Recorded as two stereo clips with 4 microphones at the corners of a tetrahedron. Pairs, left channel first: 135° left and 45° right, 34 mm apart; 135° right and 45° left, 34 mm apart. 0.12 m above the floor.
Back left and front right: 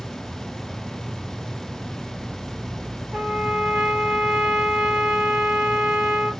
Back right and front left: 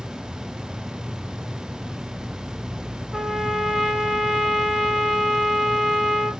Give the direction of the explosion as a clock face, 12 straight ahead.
No explosion in this recording.